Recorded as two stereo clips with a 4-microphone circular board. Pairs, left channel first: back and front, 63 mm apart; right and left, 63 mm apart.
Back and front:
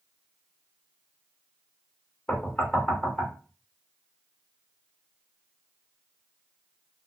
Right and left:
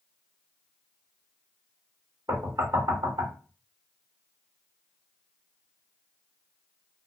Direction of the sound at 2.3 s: 105° left.